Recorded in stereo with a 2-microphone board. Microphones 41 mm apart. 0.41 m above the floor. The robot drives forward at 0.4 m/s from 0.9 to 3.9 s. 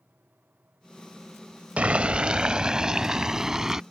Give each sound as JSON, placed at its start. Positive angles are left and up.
{"t": 1.8, "sound": "boiling", "side_deg": -35}